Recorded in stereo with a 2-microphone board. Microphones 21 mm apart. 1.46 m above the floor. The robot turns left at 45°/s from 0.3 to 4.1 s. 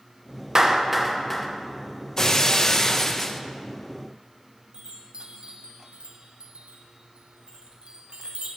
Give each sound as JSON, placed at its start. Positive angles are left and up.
{"t": 0.6, "sound": "a clap", "side_deg": -30, "distance_m": 0.9}
{"t": 2.2, "sound": "breaking glass", "azimuth_deg": 100, "distance_m": 0.6}
{"t": 4.7, "sound": "a chime", "side_deg": -55, "distance_m": 1.0}